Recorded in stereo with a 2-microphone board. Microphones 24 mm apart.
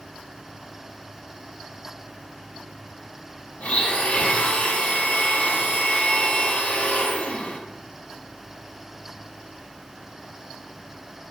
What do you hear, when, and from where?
3.6 s a blender: 55° left (ahead or behind), 0.5 m